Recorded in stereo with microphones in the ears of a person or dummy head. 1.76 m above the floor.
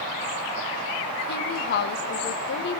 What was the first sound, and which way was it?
A woman speaking, 55° left (ahead or behind).